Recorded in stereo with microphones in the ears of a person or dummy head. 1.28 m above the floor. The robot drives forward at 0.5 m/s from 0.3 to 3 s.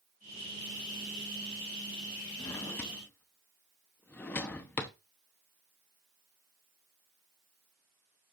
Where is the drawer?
20° left (ahead or behind), 0.6 m; by 4.9 s 15° left (ahead or behind), 0.7 m.